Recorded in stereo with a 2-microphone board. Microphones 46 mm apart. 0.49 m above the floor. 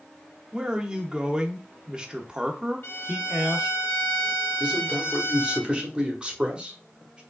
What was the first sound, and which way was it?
A man speaking, 20° right (ahead or behind).